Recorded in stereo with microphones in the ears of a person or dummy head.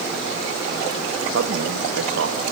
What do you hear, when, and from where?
1.3 s a man speaking: 80° right, 1.6 m